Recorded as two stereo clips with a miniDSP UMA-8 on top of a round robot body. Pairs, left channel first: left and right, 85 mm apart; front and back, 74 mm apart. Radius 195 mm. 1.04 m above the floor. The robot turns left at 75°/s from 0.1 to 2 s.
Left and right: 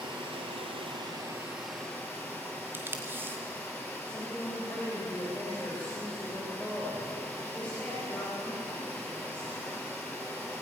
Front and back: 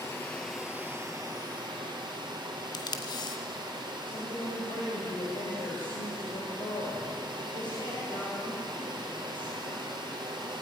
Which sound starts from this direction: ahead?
A woman speaking, at 4.0 s.